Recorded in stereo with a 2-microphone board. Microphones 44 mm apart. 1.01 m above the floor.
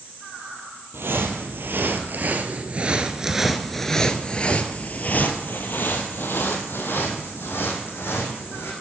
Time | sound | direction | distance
0.9 | footsteps | 65° right (ahead or behind) | 2.0 m